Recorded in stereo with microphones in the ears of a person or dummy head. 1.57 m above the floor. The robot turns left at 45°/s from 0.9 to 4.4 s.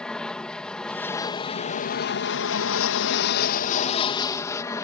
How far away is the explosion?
I don't hear an explosion.